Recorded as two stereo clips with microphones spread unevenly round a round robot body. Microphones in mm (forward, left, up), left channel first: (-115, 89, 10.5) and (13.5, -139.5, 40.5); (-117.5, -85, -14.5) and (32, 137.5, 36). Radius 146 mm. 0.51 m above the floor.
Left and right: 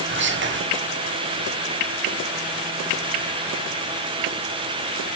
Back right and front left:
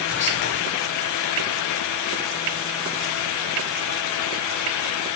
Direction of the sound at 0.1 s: 100° right.